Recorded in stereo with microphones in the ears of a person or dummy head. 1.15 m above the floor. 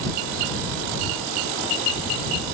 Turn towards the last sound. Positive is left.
No sound to turn to.